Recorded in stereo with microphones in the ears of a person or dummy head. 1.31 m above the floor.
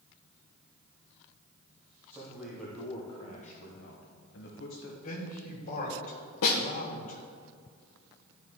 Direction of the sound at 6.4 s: 55° left (ahead or behind).